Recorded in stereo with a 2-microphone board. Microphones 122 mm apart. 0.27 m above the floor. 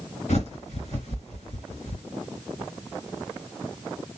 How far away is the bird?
About 2.5 m.